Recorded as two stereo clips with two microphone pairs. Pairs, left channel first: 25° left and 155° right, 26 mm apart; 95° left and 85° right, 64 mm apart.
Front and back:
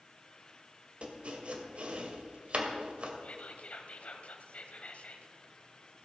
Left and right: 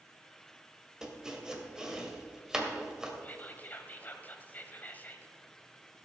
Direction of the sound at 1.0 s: 160° right.